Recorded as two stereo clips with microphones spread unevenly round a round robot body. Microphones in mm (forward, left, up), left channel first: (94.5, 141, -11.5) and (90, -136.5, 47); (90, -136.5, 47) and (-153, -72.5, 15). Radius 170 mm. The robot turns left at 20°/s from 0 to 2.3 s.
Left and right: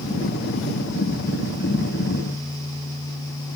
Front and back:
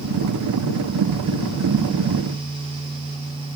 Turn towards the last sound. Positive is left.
No sound to turn to.